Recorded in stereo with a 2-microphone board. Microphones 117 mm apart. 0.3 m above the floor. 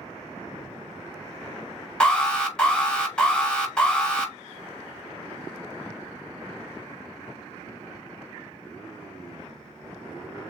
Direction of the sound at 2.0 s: 5° left (ahead or behind).